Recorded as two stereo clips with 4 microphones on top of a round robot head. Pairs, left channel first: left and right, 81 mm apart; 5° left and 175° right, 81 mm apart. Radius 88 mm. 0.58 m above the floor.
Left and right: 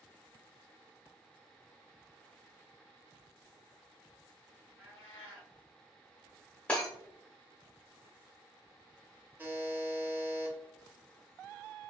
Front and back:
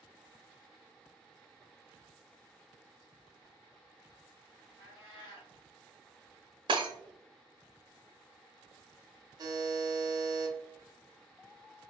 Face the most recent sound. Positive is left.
turn(degrees=-155)